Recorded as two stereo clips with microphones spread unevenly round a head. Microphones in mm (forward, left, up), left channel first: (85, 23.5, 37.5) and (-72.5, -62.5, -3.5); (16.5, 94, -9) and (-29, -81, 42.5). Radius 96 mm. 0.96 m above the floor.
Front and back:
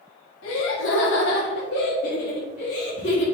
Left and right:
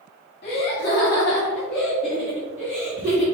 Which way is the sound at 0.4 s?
30° left.